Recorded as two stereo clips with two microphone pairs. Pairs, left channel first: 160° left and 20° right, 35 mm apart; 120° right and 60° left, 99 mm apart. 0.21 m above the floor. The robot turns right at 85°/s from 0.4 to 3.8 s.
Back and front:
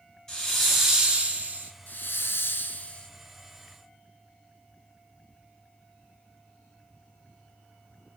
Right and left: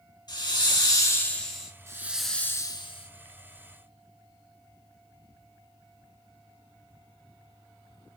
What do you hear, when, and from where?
0.3 s a hiss: 130° right, 1.2 m; by 1.7 s 20° right, 1.2 m
1.9 s a hiss: 125° left, 0.5 m; by 3.1 s 130° right, 0.5 m